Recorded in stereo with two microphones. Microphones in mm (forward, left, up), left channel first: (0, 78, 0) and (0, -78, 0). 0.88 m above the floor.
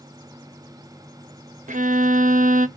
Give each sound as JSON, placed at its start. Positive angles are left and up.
{"t": 1.7, "sound": "a violin", "side_deg": -55, "distance_m": 0.5}